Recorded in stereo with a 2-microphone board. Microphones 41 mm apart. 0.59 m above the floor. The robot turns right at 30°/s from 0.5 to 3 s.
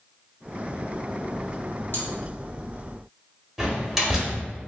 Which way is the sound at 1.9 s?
55° left (ahead or behind).